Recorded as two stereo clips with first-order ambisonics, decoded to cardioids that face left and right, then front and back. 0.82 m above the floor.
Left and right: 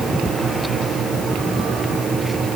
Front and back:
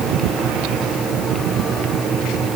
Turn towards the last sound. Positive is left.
No sound to turn to.